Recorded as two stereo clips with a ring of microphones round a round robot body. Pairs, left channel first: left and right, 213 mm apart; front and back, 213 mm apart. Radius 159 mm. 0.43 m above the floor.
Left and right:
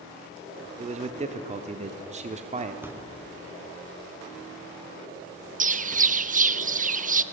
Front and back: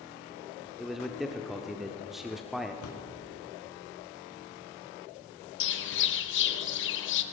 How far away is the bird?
About 0.7 m.